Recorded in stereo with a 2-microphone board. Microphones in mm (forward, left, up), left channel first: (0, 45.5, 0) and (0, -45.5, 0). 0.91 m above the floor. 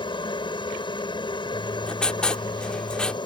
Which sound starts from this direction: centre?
Writing, at 1.5 s.